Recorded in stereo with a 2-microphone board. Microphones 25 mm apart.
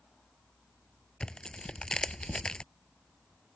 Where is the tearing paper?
35° left (ahead or behind).